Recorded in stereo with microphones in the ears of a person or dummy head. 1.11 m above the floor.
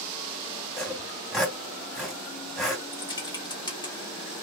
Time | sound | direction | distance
0.8 | sawing | centre (ahead or behind) | 2.5 m
2.9 | typing on a keyboard | 25° left (ahead or behind) | 1.5 m